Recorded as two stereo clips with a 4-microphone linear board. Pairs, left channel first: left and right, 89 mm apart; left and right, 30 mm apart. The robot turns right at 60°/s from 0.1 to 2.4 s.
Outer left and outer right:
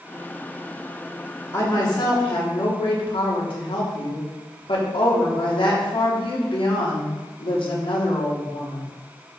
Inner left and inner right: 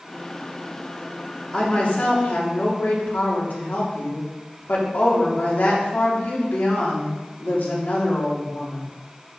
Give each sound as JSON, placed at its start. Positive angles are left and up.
{"t": 1.5, "sound": "a woman speaking", "azimuth_deg": 30, "distance_m": 3.0}